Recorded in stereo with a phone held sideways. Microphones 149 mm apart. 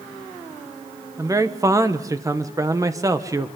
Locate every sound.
1.2 s a man speaking: 20° right (ahead or behind), 1.2 m